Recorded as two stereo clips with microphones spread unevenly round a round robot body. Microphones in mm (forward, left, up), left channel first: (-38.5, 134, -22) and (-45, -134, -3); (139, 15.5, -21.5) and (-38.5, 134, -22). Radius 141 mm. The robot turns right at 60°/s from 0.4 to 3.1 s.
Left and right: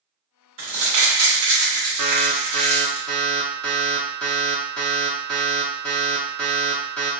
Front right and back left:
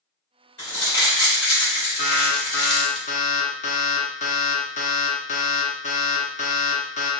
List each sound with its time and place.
0.6 s crumpling: 110° right, 1.5 m; by 3.0 s 35° left, 1.5 m
2.0 s an alarm: 60° right, 0.7 m; by 7.1 s 5° left, 0.7 m